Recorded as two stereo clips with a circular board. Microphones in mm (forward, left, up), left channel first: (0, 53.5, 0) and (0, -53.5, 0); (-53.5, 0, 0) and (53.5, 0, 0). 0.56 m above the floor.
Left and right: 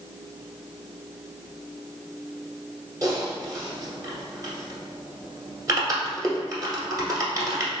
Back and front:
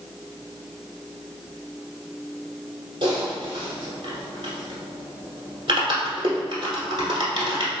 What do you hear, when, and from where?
3.0 s typing on a keyboard: 35° right, 1.2 m